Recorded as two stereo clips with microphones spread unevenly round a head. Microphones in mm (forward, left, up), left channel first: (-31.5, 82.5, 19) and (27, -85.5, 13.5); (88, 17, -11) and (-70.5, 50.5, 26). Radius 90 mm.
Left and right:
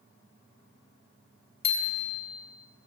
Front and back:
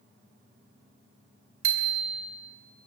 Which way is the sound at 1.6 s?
165° left.